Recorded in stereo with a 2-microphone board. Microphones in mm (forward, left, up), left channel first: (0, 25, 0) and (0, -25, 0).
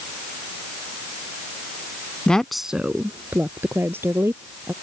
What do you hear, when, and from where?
2.3 s a woman speaking: 20° left (ahead or behind); by 4.7 s 55° right (ahead or behind)